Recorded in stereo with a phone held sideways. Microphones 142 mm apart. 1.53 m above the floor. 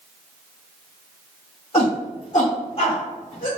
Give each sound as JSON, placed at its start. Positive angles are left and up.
{"t": 1.7, "sound": "a shout", "side_deg": 50, "distance_m": 2.0}